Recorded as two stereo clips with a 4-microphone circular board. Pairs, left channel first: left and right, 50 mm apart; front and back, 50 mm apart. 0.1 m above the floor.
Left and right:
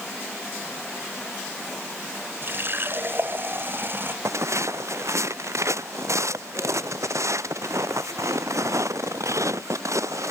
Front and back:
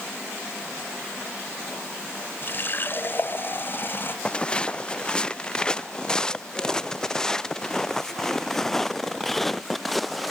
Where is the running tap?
45° right.